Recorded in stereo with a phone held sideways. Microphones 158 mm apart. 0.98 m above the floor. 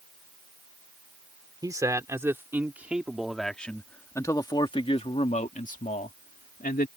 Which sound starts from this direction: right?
A man speaking, at 1.6 s.